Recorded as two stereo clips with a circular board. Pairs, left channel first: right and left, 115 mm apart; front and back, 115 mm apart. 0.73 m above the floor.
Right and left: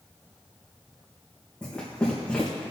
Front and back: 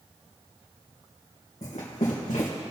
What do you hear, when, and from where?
1.6 s running footsteps: 10° right, 3.5 m